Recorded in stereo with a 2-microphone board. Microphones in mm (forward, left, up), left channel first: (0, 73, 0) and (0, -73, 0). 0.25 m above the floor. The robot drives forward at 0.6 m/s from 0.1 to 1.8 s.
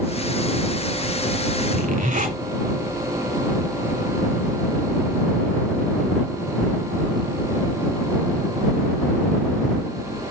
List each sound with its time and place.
1.7 s a zipper: 60° right (ahead or behind), 1.5 m